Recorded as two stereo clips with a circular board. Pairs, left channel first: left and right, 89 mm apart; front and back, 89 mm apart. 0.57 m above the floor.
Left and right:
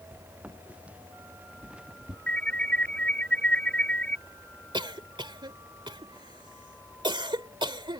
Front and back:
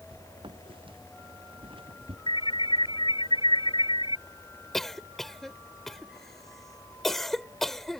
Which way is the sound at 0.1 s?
160° right.